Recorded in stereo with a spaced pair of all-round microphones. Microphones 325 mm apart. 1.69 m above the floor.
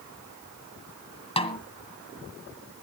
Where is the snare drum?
15° left (ahead or behind), 2 m.